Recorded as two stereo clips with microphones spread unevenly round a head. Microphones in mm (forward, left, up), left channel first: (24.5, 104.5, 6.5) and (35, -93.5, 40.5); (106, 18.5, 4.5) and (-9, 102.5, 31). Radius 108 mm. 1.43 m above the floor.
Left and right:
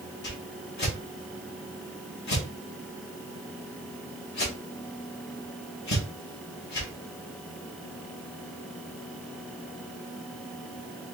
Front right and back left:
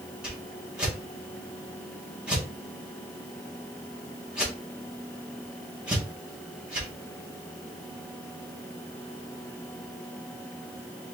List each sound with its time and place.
0.2 s a whoosh: 60° left, 2 m